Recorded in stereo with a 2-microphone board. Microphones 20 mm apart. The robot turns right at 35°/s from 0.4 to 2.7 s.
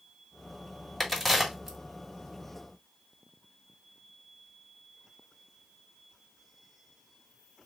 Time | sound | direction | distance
1.0 | a crack | 5° left (ahead or behind) | 2 m